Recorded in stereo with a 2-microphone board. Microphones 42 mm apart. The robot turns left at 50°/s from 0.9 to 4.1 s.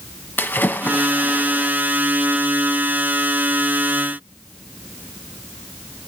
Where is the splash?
50° left, 1.2 m; by 1.7 s 10° left, 1.2 m.